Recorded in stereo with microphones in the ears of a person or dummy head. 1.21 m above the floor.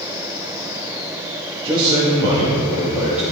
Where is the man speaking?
30° right (ahead or behind), 1.2 m; by 3.2 s 5° right (ahead or behind), 2.0 m.